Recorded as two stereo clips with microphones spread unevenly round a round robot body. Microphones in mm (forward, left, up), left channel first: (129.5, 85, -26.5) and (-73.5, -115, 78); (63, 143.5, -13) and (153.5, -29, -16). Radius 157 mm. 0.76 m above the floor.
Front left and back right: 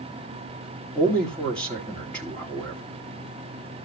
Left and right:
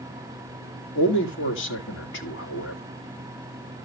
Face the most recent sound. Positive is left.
turn(degrees=120)